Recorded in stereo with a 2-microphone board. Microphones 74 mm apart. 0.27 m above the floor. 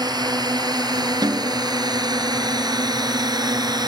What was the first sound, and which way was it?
A drone, 70° right (ahead or behind).